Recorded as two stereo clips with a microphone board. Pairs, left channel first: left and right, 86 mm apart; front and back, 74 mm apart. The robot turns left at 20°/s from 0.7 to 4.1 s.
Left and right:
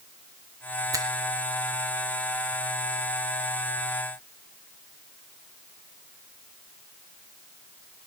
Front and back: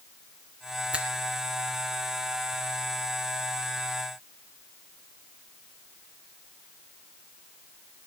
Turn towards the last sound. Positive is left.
turn(degrees=-170)